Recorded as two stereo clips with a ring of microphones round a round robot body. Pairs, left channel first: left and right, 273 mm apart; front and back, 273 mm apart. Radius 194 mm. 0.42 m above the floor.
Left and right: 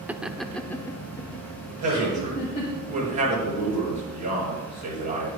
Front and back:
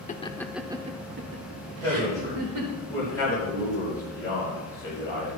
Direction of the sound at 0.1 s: 10° right.